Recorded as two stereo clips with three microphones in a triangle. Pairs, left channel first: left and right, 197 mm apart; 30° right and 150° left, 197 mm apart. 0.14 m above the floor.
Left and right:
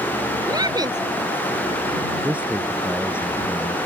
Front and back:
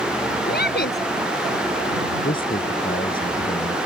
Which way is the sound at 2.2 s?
10° right.